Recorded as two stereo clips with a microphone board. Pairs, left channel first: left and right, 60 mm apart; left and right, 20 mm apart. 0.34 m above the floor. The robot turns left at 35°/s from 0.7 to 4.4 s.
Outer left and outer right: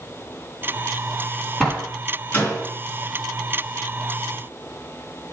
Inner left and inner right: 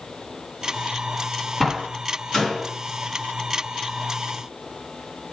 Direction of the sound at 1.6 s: 5° left (ahead or behind).